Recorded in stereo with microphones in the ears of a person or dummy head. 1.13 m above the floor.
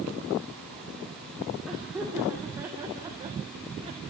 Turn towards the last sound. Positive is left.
turn(degrees=-35)  # may be behind; listen again after turning